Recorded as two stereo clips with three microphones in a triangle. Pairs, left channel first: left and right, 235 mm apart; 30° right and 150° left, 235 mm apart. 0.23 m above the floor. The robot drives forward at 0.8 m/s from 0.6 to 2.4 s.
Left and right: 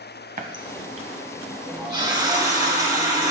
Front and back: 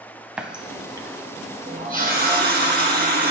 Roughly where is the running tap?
Behind right.